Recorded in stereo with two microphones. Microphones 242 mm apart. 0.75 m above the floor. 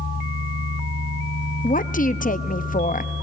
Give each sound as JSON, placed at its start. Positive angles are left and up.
{"t": 1.6, "sound": "a woman speaking", "side_deg": 35, "distance_m": 0.6}